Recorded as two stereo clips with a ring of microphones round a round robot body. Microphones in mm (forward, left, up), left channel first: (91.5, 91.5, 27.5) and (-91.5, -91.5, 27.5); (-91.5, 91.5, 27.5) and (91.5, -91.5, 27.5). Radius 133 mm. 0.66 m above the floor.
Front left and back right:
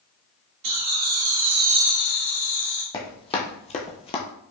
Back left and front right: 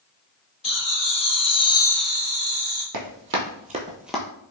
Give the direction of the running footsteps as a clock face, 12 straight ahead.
1 o'clock.